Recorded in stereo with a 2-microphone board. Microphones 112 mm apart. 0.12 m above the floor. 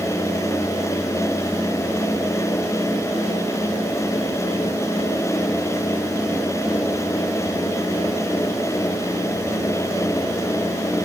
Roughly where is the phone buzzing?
No phone buzzing in this recording.